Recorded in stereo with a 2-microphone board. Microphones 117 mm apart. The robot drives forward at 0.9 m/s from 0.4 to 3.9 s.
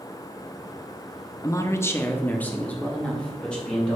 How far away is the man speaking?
About 0.6 m.